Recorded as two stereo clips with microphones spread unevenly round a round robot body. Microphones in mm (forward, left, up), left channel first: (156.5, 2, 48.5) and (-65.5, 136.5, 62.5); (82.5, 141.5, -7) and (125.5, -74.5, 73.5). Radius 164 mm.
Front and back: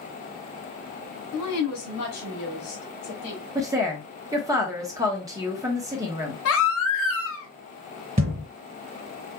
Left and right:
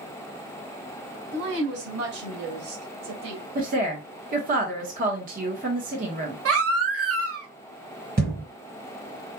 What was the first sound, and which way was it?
A woman speaking, 50° right.